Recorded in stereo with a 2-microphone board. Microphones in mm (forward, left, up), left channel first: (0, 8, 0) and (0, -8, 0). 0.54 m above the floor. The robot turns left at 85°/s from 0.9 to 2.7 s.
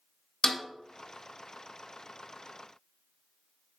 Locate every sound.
0.4 s a snare drum: 45° left (ahead or behind), 1.0 m